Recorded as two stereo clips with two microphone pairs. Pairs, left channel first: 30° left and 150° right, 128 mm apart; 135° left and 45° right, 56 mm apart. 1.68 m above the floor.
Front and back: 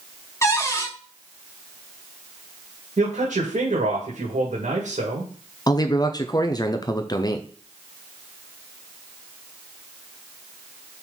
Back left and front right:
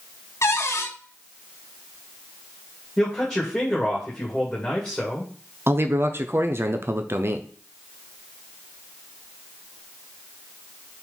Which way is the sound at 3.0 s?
145° right.